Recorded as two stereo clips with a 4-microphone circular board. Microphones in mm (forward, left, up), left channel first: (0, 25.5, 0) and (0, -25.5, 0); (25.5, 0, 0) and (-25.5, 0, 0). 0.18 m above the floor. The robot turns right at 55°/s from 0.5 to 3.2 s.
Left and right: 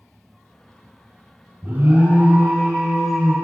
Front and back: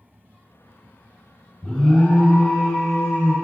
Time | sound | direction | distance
1.6 | an alarm | 90° right | 3 m